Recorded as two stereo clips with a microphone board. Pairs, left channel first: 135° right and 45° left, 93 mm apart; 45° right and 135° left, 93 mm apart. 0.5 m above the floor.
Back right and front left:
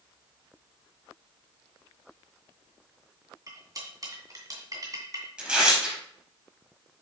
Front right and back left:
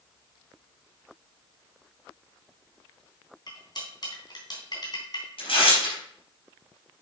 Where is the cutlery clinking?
5° right, 3 m.